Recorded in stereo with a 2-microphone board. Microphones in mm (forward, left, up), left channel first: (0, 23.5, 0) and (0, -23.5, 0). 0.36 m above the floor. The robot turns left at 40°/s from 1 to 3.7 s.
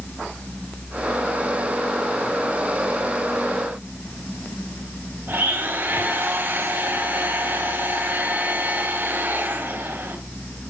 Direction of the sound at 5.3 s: 45° right (ahead or behind).